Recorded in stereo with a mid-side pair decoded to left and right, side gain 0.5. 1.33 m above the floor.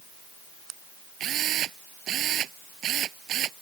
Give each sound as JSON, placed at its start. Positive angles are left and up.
{"t": 1.2, "sound": "a drill", "azimuth_deg": -60}